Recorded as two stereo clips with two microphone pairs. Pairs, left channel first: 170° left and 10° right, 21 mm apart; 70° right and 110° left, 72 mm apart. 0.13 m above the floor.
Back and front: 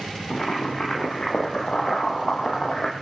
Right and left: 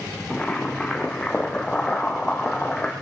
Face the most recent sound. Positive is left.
turn(degrees=-150)